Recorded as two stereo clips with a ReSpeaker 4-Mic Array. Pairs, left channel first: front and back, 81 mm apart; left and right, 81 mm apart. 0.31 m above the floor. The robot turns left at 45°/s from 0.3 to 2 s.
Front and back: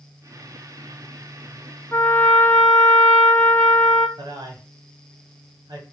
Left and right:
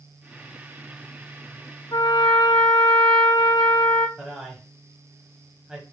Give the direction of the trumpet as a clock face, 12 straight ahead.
10 o'clock.